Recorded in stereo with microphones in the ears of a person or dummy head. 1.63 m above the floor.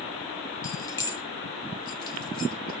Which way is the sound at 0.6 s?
20° left (ahead or behind).